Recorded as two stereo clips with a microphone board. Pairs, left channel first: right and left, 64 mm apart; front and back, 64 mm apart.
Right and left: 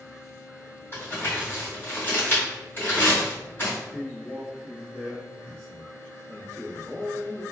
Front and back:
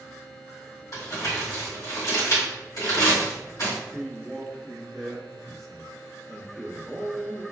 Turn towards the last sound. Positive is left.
turn(degrees=-90)